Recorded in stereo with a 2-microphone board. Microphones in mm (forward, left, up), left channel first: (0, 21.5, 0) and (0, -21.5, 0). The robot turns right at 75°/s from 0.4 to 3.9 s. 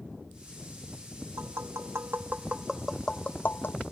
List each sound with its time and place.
1.4 s tapping: 65° right (ahead or behind); by 3.8 s 65° left (ahead or behind)